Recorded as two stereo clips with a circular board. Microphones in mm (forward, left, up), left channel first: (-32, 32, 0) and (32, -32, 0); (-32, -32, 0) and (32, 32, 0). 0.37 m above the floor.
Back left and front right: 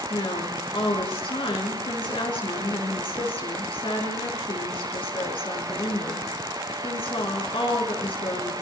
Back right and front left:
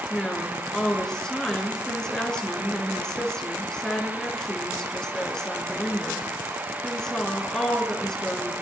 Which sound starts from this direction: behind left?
A woman speaking, at 0.1 s.